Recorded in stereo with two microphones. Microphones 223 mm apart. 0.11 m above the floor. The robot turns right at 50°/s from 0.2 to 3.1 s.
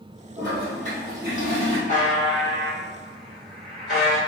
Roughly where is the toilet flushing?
Behind.